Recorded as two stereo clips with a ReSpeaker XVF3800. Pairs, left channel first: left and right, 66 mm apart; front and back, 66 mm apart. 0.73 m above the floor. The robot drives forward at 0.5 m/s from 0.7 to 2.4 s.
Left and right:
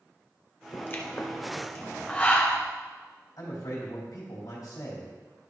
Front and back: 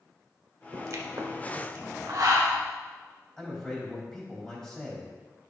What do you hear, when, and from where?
0.7 s a pop: 140° left, 1.0 m; by 2.6 s 160° left, 1.8 m
3.4 s a man speaking: 80° left, 3.5 m